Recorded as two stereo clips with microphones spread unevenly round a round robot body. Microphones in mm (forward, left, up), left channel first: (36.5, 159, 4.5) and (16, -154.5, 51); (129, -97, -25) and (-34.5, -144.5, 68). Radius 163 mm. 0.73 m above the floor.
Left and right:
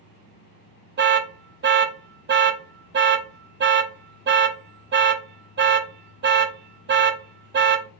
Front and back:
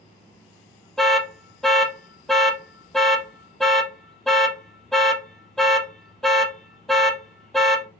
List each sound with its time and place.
1.0 s an alarm: 40° right, 0.6 m